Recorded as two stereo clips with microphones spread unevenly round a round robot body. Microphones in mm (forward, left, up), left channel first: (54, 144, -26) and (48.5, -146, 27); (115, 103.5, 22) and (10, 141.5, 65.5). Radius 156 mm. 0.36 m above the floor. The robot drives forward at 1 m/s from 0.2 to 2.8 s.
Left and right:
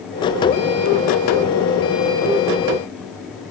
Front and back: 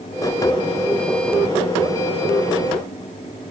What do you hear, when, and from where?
Only background noise.